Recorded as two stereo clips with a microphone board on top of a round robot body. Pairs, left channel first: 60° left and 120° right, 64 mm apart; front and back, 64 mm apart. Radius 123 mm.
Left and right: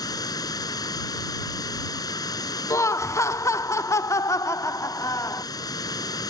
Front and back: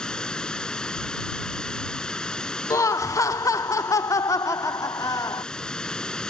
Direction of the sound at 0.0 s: 80° left.